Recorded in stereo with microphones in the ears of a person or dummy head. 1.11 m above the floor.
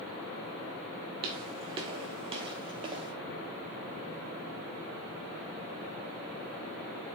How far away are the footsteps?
About 1.2 m.